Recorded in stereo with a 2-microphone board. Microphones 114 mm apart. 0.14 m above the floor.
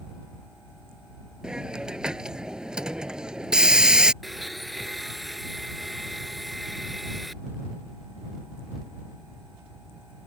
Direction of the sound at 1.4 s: 10° right (ahead or behind).